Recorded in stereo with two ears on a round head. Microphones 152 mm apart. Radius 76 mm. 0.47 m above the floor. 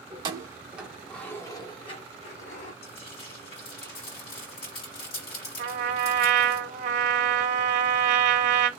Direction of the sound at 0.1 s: 30° right (ahead or behind).